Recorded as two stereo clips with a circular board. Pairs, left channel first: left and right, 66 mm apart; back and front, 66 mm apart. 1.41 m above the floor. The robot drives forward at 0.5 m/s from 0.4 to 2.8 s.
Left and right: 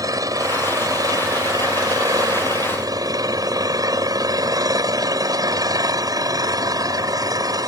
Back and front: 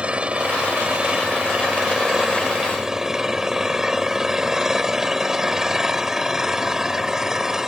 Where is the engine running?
70° right; by 7.7 s 80° right.